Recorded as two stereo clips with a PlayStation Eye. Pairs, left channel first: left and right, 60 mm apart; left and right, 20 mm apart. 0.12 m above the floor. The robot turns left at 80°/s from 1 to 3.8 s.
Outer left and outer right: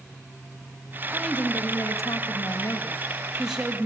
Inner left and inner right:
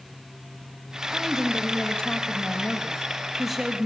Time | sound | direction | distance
1.1 | a woman speaking | straight behind | 3.5 m